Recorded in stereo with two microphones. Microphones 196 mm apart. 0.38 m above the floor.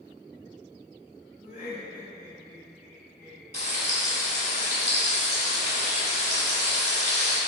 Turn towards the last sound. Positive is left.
turn(degrees=35)  # may be behind; listen again after turning